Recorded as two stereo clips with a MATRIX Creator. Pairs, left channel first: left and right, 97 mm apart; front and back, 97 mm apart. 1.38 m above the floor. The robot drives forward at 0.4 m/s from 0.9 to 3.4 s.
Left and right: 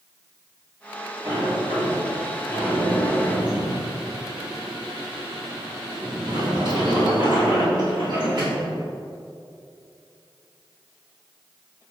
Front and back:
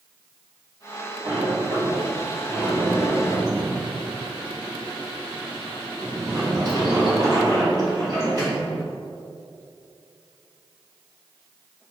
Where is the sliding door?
115° right, 2 m; by 8.7 s 130° right, 2.5 m.